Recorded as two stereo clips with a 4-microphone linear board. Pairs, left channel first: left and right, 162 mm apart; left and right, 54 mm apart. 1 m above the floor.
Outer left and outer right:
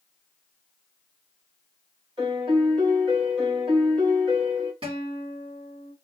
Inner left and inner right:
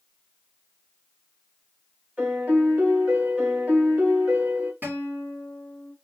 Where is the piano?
30° right (ahead or behind), 2.5 m.